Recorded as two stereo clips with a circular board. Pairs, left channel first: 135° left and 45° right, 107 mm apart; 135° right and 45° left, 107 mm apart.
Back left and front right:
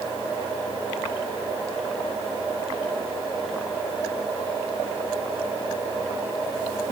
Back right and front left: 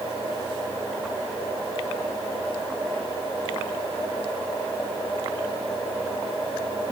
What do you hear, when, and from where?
Only background noise.